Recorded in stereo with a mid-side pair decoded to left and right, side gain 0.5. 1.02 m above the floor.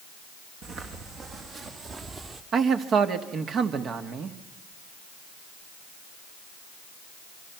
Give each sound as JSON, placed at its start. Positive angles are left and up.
{"t": 0.6, "sound": "footsteps", "azimuth_deg": -65, "distance_m": 4.0}
{"t": 2.5, "sound": "a man speaking", "azimuth_deg": -55, "distance_m": 1.8}